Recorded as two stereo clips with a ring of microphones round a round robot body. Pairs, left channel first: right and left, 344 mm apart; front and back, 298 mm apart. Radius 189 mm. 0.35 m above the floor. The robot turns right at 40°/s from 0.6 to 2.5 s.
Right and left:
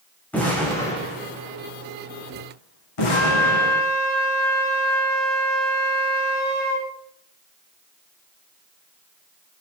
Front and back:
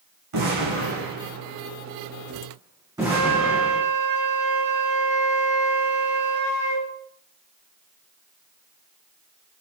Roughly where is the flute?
Behind right.